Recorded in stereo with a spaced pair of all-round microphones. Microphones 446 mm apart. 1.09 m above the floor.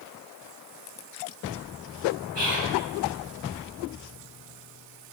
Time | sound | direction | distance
2.4 | whispering | 65° right (ahead or behind) | 1.1 m